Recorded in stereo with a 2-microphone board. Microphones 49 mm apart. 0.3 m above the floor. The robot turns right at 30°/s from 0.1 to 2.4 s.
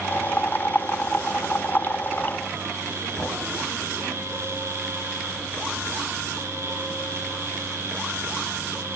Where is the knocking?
35° left (ahead or behind), 1.2 m.